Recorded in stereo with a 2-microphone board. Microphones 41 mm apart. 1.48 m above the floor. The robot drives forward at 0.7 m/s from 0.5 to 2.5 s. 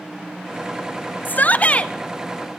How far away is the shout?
About 0.6 m.